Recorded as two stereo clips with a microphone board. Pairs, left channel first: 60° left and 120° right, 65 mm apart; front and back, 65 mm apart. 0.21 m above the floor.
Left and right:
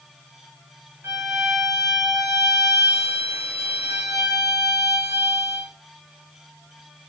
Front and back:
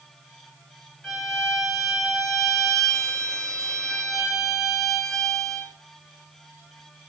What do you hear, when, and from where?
1.0 s a violin: 80° right, 1.4 m